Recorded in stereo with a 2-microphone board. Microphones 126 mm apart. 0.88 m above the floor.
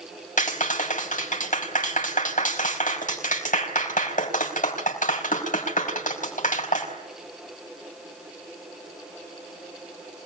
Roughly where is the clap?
Left.